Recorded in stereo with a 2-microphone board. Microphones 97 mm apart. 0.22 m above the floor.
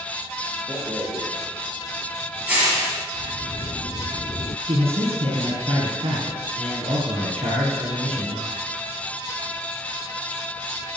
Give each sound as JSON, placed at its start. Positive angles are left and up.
{"t": 0.7, "sound": "a rattle", "side_deg": -15, "distance_m": 5.5}
{"t": 3.1, "sound": "a sliding door", "side_deg": 55, "distance_m": 0.7}
{"t": 4.7, "sound": "a man speaking", "side_deg": -75, "distance_m": 5.5}